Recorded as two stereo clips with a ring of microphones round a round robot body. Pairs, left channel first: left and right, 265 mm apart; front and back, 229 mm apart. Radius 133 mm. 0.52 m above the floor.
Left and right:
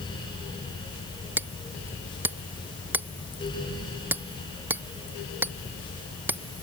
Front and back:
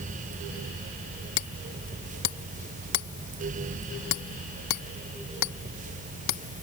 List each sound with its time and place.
1.4 s hammering: 5° right